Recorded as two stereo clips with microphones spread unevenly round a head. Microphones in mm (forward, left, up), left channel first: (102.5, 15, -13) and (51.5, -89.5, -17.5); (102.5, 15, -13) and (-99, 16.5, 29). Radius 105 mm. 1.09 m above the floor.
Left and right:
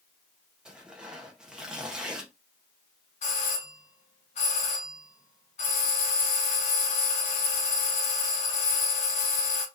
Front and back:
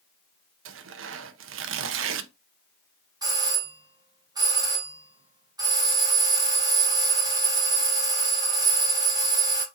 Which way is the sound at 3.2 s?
105° left.